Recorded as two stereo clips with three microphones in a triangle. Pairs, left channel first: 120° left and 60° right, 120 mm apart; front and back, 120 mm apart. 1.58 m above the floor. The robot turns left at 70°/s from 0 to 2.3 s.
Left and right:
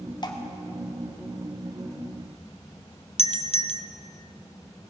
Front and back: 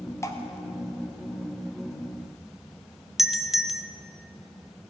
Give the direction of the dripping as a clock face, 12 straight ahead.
10 o'clock.